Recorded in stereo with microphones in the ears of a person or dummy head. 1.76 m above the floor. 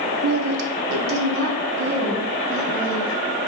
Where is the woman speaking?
80° right, 1.3 m; by 3.1 s 75° right (ahead or behind), 5.5 m.